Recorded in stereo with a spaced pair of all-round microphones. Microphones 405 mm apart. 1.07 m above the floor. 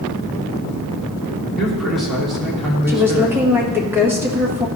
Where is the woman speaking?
5° right (ahead or behind), 1.6 m.